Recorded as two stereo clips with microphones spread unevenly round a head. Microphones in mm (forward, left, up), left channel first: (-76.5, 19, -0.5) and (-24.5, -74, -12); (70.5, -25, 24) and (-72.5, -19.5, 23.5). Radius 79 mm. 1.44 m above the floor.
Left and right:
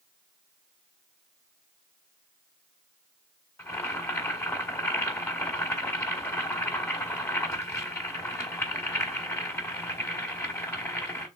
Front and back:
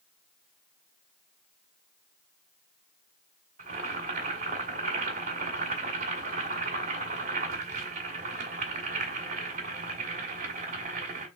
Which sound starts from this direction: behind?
Boiling, at 3.6 s.